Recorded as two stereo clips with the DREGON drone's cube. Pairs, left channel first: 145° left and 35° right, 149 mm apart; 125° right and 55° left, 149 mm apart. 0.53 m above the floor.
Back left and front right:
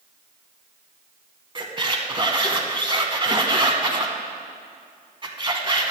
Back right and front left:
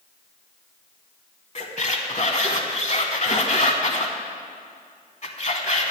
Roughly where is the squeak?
Right.